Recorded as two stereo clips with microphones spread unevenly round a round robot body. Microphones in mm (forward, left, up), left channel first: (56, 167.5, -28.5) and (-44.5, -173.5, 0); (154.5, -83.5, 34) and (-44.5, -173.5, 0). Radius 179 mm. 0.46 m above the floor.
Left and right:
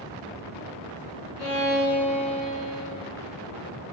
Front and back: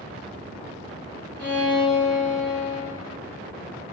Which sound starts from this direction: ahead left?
A violin, at 1.4 s.